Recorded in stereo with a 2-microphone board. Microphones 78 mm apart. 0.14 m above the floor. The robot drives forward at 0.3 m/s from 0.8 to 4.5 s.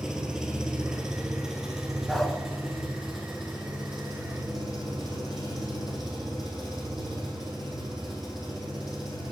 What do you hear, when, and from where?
0.0 s an engine running: 10° right (ahead or behind), 1.2 m; by 9.3 s 5° right (ahead or behind), 2 m
2.1 s a dog barking: 5° left (ahead or behind), 0.6 m